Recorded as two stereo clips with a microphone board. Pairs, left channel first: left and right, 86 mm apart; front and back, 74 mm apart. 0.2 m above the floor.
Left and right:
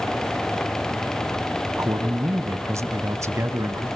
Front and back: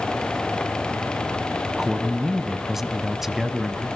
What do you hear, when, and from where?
1.8 s a man speaking: 95° right, 1.2 m